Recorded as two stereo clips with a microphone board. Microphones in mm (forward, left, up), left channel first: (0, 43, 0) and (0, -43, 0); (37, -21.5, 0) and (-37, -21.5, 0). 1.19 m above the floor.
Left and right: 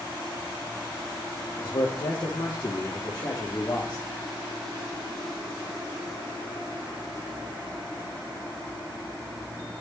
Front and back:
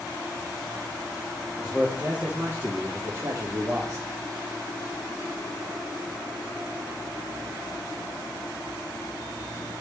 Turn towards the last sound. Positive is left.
turn(degrees=135)